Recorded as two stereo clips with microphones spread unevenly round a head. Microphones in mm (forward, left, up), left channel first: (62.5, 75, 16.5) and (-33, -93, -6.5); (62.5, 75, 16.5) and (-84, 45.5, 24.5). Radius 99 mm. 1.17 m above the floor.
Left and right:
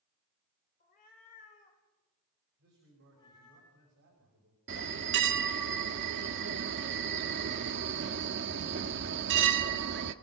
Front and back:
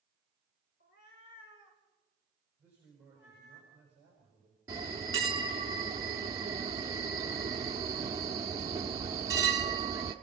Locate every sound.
0.8 s a cat meowing: 20° left, 2.5 m; by 3.6 s 10° right, 5.5 m
2.6 s a man speaking: 90° right, 5.5 m
4.7 s a bell: 100° right, 0.9 m